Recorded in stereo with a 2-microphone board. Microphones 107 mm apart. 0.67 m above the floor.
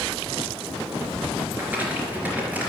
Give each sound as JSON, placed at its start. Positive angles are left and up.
{"t": 1.5, "sound": "crumpling", "side_deg": -15, "distance_m": 3.5}